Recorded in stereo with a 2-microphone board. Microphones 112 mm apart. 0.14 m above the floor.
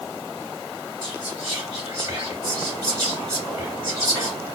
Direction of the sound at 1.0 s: 25° right (ahead or behind).